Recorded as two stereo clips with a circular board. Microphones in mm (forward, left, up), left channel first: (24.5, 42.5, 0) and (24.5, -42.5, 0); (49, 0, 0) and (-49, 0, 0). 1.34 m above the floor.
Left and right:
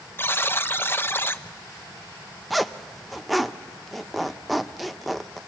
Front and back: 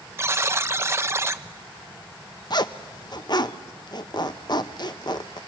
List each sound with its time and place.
0.2 s a buzzer: 135° left, 0.5 m
2.5 s a zipper: straight ahead, 0.6 m